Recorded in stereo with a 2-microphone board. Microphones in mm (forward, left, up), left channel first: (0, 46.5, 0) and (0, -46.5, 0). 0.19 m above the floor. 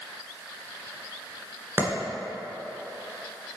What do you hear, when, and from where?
1.8 s a clap: 25° right (ahead or behind), 1.9 m